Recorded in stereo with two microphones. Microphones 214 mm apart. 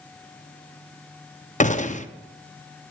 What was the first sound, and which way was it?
A gunshot, 35° left (ahead or behind).